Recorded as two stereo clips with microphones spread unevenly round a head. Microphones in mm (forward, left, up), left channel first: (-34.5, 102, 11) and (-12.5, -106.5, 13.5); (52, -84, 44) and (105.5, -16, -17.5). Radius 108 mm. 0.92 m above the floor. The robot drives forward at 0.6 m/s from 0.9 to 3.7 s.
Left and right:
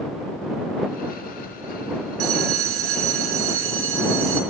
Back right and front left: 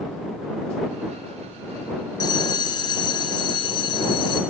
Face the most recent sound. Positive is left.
turn(degrees=-110)